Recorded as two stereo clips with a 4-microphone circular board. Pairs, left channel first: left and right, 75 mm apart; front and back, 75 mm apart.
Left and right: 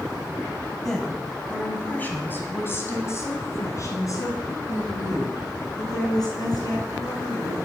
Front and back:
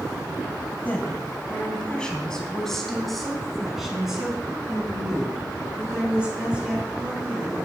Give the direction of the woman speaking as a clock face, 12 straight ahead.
12 o'clock.